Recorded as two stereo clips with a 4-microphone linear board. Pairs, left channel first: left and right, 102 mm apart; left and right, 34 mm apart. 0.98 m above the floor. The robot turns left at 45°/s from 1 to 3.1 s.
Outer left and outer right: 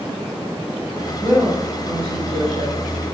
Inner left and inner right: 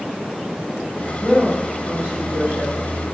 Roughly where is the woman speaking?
Ahead.